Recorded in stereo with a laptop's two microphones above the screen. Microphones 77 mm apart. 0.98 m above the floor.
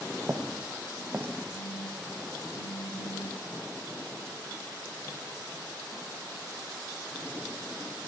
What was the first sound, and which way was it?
Footsteps, 40° right (ahead or behind).